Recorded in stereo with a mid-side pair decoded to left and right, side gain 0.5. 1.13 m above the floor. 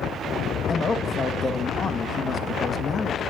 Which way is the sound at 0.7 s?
35° left.